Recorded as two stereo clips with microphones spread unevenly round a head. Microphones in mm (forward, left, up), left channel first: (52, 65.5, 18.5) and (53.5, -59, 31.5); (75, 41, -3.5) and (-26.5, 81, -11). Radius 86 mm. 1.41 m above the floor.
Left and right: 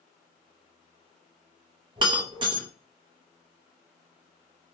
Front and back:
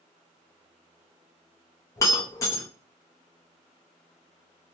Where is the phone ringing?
No phone ringing in this recording.